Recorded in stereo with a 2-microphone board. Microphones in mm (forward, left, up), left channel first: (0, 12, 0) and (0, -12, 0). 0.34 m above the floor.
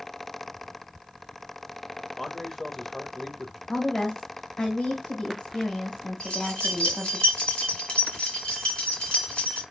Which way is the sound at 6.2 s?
55° left (ahead or behind).